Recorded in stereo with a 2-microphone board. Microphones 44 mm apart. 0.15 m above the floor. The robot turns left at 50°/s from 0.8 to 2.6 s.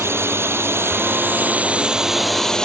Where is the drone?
70° right (ahead or behind); by 2.7 s 15° left (ahead or behind).